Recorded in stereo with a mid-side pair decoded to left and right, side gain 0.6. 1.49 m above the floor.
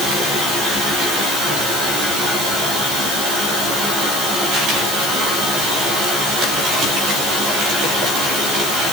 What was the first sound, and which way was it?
Only background noise.